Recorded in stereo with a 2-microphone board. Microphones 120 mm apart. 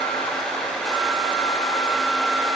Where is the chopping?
I don't hear chopping.